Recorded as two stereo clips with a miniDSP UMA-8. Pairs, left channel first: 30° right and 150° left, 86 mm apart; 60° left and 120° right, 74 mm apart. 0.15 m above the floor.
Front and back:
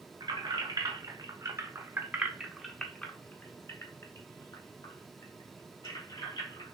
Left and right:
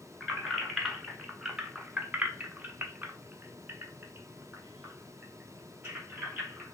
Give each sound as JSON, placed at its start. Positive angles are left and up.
{"t": 0.2, "sound": "keys jangling", "azimuth_deg": 145, "distance_m": 1.4}